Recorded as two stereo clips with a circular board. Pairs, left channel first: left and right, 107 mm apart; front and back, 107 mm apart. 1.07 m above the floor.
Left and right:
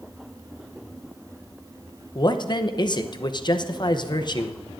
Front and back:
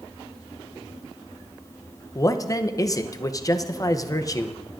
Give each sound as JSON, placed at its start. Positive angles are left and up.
{"t": 2.1, "sound": "a man speaking", "azimuth_deg": 50, "distance_m": 0.7}